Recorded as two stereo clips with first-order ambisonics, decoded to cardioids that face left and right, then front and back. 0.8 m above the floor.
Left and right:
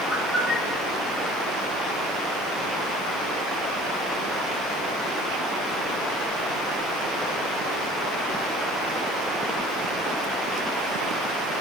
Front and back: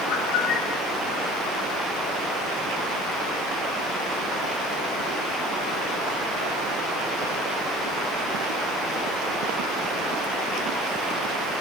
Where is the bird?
Straight ahead, 5 m.